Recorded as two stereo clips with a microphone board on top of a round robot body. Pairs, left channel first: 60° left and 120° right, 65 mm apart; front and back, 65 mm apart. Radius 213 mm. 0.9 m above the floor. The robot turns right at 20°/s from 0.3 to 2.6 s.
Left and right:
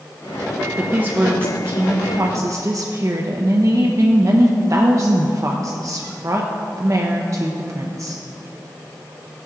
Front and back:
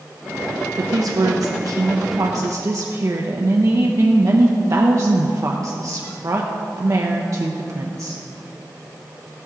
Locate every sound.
0.8 s a woman speaking: 170° left, 0.9 m; by 8.2 s 150° right, 0.9 m